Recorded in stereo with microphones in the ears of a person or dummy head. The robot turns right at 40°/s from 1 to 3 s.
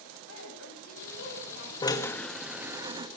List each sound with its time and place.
0.3 s a woman speaking: 100° left, 9 m; by 1.9 s 135° left, 9 m
1.8 s a drill: 155° left, 1.9 m; by 3.1 s 160° right, 1.9 m